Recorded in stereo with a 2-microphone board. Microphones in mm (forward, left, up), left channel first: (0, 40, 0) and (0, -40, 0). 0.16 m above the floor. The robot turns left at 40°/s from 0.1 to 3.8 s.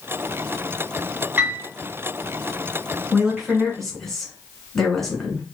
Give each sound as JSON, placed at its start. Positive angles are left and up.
{"t": 1.4, "sound": "a piano", "side_deg": -25, "distance_m": 2.5}
{"t": 3.1, "sound": "a woman speaking", "side_deg": -10, "distance_m": 1.8}